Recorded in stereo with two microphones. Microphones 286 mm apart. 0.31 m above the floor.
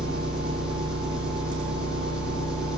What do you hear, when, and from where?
0.0 s an engine running: 5° right (ahead or behind), 9.5 m